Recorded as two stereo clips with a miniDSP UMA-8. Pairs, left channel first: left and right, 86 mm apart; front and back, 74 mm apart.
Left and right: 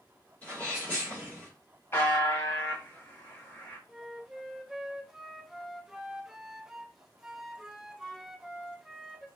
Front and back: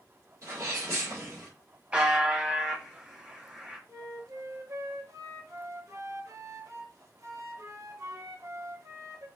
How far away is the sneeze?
About 1.8 m.